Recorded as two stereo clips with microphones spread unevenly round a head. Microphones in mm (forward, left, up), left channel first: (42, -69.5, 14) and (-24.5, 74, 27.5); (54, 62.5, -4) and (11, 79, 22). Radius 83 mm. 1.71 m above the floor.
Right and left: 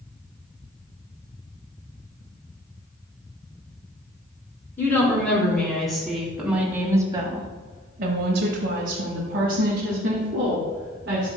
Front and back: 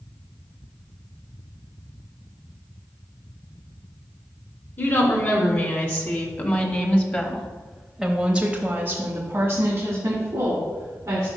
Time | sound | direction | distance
4.8 | a woman speaking | 15° left | 2.5 m